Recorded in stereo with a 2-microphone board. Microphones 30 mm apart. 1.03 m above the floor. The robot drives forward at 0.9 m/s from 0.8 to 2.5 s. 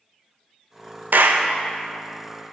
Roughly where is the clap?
Right.